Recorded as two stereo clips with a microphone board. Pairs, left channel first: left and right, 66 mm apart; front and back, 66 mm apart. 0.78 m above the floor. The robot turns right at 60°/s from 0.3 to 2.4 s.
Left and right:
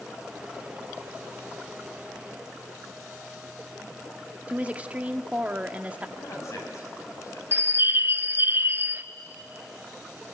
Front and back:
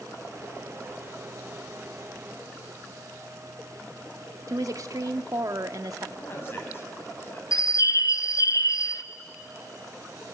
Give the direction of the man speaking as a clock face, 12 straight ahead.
10 o'clock.